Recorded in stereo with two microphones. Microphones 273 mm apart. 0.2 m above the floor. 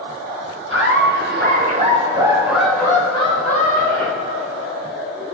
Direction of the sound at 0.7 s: 50° right (ahead or behind).